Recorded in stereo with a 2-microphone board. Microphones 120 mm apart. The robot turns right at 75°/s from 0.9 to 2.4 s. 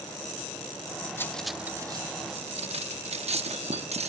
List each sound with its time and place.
1.2 s cutlery clinking: 20° left (ahead or behind), 0.7 m; by 4.1 s 55° right (ahead or behind), 0.7 m